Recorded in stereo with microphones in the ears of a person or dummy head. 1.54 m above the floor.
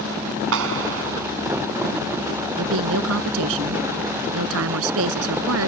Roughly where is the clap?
Right.